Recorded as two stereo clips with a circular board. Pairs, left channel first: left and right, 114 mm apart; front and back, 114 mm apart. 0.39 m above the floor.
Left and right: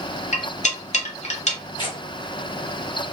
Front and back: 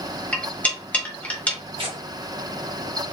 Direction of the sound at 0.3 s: 75° left.